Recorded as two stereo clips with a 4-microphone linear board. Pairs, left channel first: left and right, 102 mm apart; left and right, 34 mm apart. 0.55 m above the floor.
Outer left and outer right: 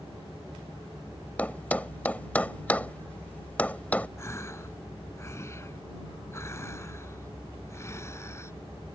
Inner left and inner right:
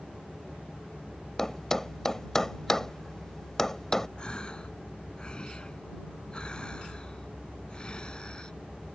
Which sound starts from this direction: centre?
A thud, at 1.4 s.